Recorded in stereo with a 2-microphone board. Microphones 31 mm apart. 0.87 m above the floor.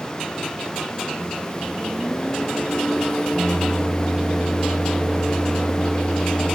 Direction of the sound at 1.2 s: 20° left (ahead or behind).